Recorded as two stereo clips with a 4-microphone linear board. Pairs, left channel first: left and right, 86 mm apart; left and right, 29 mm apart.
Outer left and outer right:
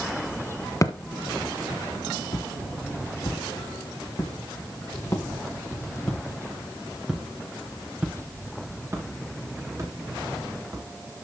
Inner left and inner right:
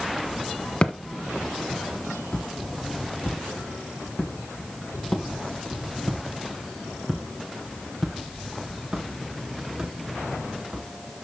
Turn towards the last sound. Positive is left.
turn(degrees=-45)  # may be behind; listen again after turning